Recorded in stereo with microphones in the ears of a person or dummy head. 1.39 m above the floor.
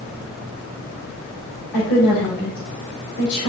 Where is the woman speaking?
60° left (ahead or behind), 5.5 m.